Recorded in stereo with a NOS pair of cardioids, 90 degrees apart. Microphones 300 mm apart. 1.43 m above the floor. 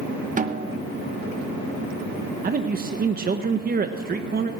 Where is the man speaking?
30° right, 1.1 m.